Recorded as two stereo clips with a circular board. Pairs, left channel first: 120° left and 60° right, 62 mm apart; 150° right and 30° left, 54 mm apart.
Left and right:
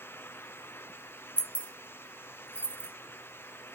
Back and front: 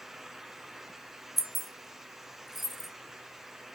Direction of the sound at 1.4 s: 115° left.